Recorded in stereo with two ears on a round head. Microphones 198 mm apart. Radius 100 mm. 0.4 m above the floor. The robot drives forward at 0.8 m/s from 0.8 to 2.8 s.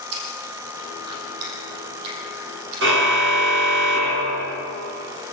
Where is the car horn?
55° right (ahead or behind), 2.5 m.